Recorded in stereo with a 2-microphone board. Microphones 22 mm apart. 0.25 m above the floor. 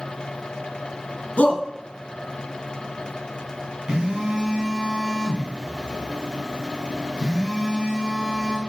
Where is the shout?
60° left (ahead or behind), 2.5 m.